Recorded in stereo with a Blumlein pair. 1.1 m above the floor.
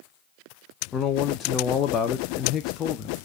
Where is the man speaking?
25° left, 0.5 m.